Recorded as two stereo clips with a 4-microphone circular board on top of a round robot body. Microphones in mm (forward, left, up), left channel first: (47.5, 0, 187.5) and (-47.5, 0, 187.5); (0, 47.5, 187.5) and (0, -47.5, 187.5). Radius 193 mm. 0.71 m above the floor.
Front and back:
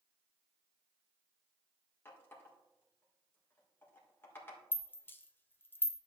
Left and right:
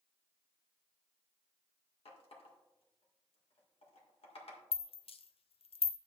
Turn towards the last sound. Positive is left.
turn(degrees=70)